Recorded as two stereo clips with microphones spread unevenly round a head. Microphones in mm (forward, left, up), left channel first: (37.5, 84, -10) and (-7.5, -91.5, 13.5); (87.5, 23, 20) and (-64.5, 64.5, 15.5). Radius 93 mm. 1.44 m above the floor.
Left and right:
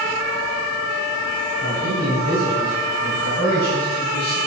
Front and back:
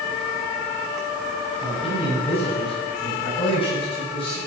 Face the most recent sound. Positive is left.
turn(degrees=40)